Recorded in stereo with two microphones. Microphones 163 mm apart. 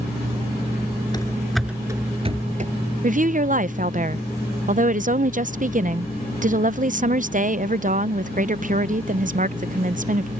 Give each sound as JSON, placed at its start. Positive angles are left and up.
{"t": 1.1, "sound": "running footsteps", "side_deg": 25}
{"t": 3.0, "sound": "a woman speaking", "side_deg": -50}